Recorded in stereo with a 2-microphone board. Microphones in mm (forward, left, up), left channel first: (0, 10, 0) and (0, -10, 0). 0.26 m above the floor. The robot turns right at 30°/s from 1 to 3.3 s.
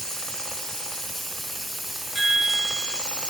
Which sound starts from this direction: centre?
A chime, at 2.1 s.